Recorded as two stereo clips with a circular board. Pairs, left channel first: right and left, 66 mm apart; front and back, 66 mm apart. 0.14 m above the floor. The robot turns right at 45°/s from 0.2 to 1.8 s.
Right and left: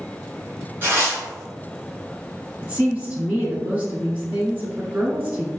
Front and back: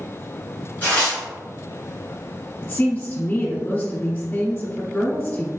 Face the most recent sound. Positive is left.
turn(degrees=45)